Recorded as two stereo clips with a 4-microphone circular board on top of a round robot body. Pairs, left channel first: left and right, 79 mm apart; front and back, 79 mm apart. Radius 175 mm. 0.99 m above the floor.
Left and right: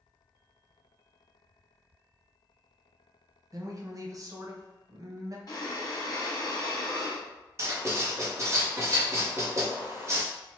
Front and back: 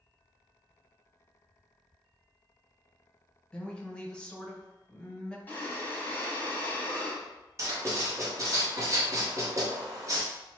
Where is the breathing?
65° left, 1.0 m.